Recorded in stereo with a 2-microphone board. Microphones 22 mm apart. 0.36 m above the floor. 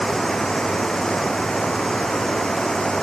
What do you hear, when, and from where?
0.0 s running water: 25° left (ahead or behind)